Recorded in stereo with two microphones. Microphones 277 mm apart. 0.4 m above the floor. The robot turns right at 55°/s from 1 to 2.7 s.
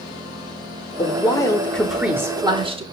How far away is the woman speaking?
About 0.8 m.